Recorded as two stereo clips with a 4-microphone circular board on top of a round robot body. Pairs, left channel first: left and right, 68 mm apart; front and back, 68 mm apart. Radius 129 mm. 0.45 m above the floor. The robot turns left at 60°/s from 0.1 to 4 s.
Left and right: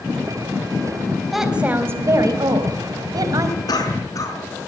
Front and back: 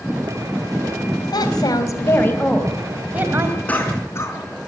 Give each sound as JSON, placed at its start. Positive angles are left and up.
{"t": 1.3, "sound": "a woman speaking", "azimuth_deg": 0, "distance_m": 3.5}
{"t": 3.7, "sound": "a cough", "azimuth_deg": 70, "distance_m": 5.5}